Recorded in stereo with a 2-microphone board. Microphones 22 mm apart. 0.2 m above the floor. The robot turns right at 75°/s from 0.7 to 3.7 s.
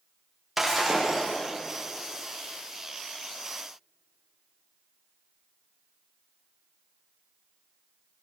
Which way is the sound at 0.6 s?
170° right.